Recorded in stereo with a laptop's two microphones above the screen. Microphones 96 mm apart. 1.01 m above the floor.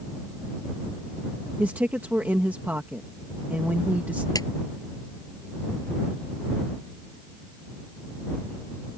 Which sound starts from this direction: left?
A clap, at 4.3 s.